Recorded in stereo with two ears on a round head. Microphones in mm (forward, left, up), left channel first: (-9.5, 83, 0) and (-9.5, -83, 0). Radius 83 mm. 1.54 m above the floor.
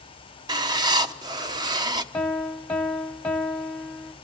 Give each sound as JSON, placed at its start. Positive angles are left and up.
{"t": 0.5, "sound": "writing", "side_deg": -25, "distance_m": 1.0}
{"t": 2.1, "sound": "a piano", "side_deg": 5, "distance_m": 1.1}